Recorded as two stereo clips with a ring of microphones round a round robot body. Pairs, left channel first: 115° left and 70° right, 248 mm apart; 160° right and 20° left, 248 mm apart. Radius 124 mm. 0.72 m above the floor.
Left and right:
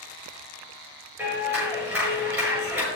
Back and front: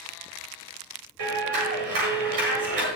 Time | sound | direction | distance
1.2 | a clap | 15° left | 7.5 m